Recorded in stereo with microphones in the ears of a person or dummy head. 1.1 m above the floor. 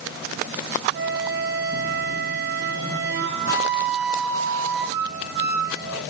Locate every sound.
0.9 s a flute: 55° right (ahead or behind), 4.5 m